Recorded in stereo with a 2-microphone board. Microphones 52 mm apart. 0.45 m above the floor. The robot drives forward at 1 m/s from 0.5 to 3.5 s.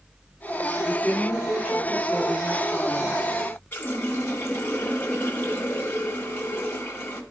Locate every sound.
0.8 s a woman speaking: 20° left (ahead or behind), 6.5 m; by 3.3 s 15° left (ahead or behind), 8.5 m
3.7 s a running tap: 40° left (ahead or behind), 1.7 m